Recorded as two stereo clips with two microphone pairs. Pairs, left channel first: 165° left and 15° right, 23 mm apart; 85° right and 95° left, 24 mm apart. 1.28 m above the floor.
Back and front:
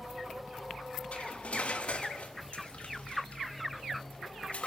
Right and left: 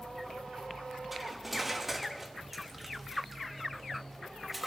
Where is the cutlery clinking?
175° left, 1.0 m.